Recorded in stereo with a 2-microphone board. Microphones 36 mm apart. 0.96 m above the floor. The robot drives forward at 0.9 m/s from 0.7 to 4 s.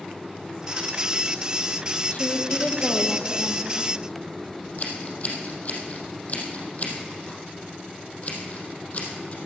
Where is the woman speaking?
40° left (ahead or behind), 1.2 m; by 3.9 s 30° left (ahead or behind), 1.6 m.